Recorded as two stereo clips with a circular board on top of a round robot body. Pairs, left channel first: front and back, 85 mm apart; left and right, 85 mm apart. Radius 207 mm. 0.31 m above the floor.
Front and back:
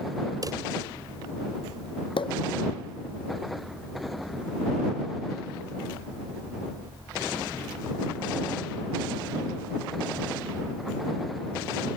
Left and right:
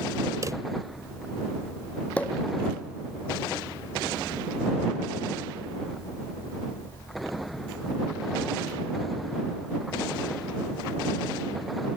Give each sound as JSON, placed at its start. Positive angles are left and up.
{"t": 0.4, "sound": "a drawer", "azimuth_deg": -140}
{"t": 2.2, "sound": "a pop", "azimuth_deg": 15}